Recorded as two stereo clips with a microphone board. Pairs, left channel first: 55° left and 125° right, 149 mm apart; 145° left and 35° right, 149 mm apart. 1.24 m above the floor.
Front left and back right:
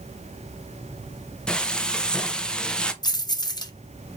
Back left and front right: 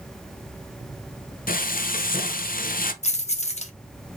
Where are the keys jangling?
115° left, 0.6 m.